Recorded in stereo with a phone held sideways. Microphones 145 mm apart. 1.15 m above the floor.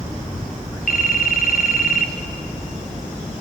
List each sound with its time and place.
0.9 s a phone ringing: 75° left (ahead or behind), 1.1 m